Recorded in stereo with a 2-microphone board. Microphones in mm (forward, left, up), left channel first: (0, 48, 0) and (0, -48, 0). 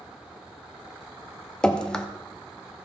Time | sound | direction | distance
1.6 | dripping | 10° left (ahead or behind) | 0.6 m